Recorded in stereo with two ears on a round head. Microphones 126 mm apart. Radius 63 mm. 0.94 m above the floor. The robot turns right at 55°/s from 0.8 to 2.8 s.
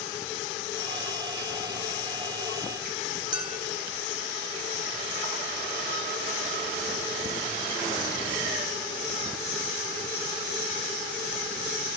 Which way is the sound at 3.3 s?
30° right (ahead or behind).